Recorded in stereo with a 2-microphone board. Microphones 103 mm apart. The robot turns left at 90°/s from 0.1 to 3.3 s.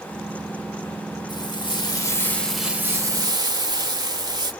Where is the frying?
115° left, 1.1 m; by 4.5 s 65° right, 1.1 m.